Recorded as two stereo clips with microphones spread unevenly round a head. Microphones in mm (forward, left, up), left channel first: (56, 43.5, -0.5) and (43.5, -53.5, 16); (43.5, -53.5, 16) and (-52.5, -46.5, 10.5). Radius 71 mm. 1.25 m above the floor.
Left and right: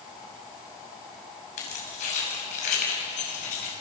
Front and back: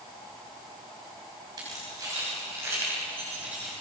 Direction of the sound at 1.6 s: 110° left.